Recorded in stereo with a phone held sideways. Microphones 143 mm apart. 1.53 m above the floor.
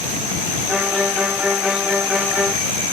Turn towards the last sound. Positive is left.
turn(degrees=-5)  # may be behind; listen again after turning